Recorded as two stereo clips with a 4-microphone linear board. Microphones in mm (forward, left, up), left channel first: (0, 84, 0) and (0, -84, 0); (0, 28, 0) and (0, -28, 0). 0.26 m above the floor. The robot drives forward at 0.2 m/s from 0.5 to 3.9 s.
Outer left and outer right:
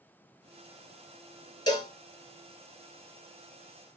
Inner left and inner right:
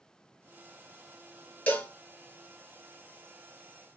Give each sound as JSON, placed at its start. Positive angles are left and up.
{"t": 1.7, "sound": "a cowbell", "side_deg": 25, "distance_m": 0.9}